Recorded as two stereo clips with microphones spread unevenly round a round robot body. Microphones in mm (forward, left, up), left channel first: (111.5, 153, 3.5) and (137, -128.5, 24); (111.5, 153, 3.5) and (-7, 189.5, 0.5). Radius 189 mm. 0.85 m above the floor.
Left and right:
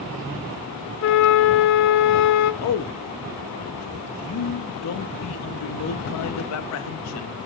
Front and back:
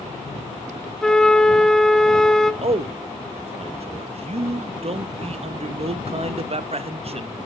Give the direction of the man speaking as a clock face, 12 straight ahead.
8 o'clock.